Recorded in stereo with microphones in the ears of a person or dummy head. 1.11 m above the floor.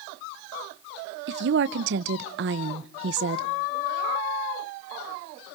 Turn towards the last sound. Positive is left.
turn(degrees=-65)  # may be behind; listen again after turning